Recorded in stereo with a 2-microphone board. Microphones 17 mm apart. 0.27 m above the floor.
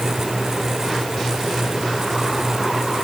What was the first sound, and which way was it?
Only background noise.